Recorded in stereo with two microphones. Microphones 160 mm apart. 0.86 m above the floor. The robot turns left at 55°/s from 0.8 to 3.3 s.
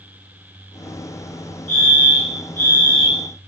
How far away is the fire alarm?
About 2.5 m.